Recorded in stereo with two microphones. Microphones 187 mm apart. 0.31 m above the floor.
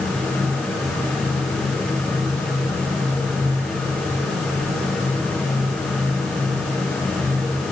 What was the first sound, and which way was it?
Only background noise.